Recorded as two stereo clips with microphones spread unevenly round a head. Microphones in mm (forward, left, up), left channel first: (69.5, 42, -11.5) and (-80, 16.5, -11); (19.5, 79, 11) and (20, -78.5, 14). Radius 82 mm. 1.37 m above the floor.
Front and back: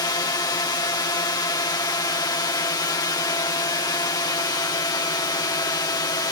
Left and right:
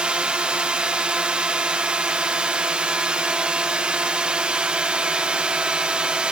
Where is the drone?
15° right.